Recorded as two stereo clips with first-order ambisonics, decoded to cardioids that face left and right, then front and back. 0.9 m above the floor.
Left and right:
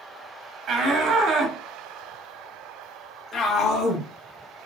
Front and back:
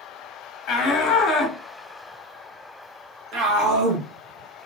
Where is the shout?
50° right, 1.0 m; by 4.1 s 150° left, 1.3 m.